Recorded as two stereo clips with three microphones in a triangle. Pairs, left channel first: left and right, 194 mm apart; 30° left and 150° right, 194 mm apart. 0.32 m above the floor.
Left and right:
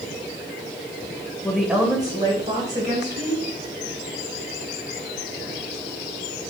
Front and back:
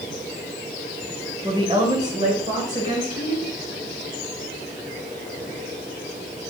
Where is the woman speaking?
165° left, 1.0 m; by 3.5 s 115° right, 1.9 m.